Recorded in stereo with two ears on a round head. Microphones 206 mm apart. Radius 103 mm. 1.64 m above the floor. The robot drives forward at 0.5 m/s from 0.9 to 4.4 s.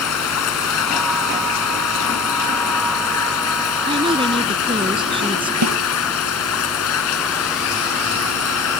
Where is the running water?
80° left; by 8.8 s 70° left (ahead or behind).